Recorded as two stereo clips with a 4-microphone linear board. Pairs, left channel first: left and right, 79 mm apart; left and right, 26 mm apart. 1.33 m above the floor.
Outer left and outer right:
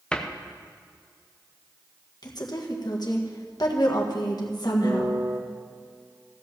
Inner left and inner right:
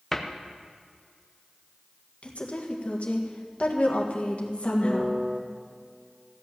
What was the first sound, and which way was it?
A cupboard door, 10° left (ahead or behind).